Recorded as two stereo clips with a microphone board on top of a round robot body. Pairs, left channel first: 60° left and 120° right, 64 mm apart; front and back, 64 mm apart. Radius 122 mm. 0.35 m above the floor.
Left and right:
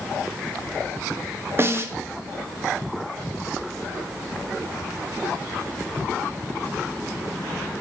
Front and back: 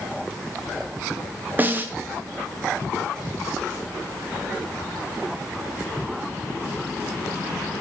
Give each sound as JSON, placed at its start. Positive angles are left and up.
{"t": 1.6, "sound": "a snare drum", "azimuth_deg": -135, "distance_m": 0.9}